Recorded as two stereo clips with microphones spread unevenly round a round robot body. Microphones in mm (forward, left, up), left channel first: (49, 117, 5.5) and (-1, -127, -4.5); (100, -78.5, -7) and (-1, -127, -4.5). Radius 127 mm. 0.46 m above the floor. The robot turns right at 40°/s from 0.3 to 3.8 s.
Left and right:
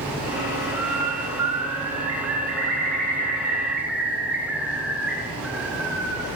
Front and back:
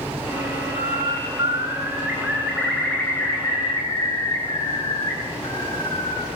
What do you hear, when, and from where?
0.8 s a bird: 135° right, 6.5 m; by 6.3 s 15° right, 6.5 m